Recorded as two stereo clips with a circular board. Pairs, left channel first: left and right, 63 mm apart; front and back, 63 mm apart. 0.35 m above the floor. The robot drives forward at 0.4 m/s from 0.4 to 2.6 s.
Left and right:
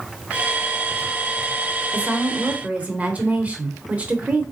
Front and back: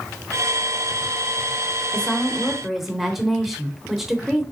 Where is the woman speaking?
55° right, 0.9 m; by 4.4 s 100° right, 0.9 m.